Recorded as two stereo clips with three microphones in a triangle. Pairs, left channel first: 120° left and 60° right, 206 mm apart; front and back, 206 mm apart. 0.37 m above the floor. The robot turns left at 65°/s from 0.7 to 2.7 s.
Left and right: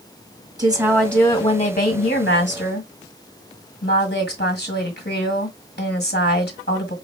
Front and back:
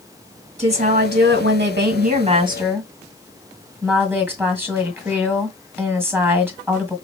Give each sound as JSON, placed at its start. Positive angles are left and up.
{"t": 0.6, "sound": "a woman speaking", "azimuth_deg": -130, "distance_m": 1.5}